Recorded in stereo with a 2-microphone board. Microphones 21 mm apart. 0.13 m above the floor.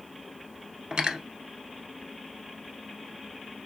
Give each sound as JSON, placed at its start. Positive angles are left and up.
{"t": 0.9, "sound": "cutlery clinking", "side_deg": -50, "distance_m": 1.0}